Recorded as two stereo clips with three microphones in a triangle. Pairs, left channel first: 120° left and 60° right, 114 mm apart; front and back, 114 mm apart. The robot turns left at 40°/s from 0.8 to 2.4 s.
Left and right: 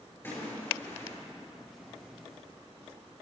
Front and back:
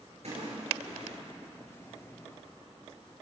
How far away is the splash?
About 6 m.